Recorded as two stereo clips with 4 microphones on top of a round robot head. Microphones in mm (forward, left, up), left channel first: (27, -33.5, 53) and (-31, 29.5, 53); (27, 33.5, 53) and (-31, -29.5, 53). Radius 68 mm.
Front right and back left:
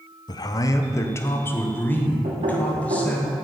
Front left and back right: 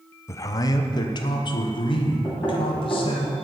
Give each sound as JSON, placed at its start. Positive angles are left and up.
{"t": 0.3, "sound": "a man speaking", "azimuth_deg": -10, "distance_m": 0.8}
{"t": 2.2, "sound": "knocking", "azimuth_deg": 110, "distance_m": 3.0}